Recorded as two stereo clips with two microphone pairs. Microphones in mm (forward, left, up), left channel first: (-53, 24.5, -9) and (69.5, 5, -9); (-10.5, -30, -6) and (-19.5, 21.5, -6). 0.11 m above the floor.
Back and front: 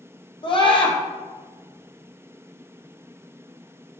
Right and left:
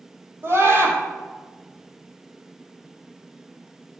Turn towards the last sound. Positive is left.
turn(degrees=130)